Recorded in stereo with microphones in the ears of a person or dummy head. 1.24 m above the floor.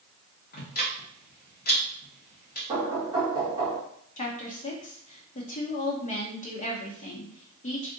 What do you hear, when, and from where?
0.5 s ticking: 45° left (ahead or behind), 0.9 m
2.7 s knocking: 25° right (ahead or behind), 1.2 m
4.2 s a woman speaking: 35° left (ahead or behind), 0.7 m